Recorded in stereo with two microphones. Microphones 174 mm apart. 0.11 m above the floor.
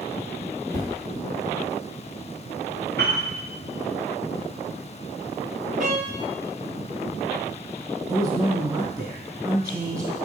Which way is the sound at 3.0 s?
75° right (ahead or behind).